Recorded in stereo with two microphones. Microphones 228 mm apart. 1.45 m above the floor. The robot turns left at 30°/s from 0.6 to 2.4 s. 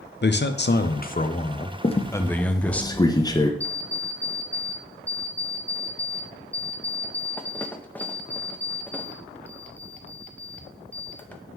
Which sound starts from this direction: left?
A squeak, at 1.8 s.